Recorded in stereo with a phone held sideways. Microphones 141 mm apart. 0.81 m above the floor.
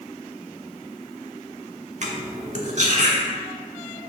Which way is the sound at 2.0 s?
55° right (ahead or behind).